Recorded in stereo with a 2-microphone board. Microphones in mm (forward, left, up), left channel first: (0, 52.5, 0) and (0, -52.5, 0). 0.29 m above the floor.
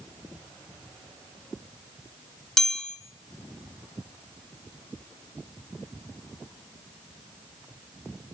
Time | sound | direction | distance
2.6 | a chime | 5° left (ahead or behind) | 1.1 m